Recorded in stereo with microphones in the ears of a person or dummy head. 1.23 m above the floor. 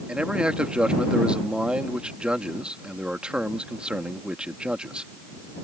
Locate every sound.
0.1 s a man speaking: 5° right (ahead or behind)